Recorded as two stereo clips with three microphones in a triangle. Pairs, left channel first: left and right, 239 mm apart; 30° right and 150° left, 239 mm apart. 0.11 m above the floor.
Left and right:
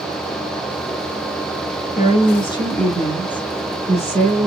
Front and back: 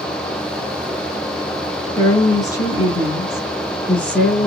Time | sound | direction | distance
1.9 | a woman speaking | 40° left | 1.8 m